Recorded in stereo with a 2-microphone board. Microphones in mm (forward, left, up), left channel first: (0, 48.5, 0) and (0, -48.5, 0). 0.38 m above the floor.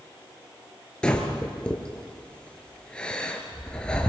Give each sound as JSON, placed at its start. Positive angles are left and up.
{"t": 1.0, "sound": "breathing", "side_deg": 10, "distance_m": 3.0}